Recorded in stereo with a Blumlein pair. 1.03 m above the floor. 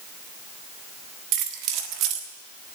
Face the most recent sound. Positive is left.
turn(degrees=-40)